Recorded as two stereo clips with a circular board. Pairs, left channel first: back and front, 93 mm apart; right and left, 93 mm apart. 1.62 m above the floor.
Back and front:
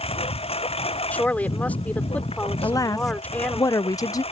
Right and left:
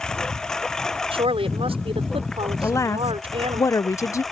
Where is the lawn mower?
175° right; by 4.3 s straight behind.